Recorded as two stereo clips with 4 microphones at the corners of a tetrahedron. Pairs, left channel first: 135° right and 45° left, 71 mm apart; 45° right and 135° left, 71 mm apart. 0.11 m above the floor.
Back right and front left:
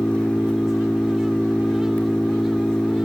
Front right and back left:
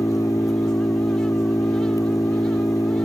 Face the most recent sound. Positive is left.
turn(degrees=-60)